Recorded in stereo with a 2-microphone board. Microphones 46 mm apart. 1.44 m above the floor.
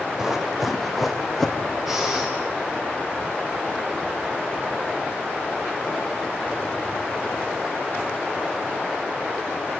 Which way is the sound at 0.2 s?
15° right (ahead or behind).